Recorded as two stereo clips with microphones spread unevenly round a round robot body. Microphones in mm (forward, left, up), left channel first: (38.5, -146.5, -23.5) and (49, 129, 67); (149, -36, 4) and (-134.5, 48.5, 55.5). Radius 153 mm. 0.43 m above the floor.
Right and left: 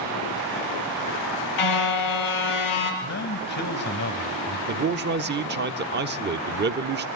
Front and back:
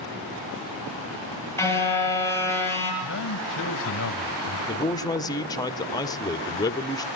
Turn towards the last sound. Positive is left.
turn(degrees=35)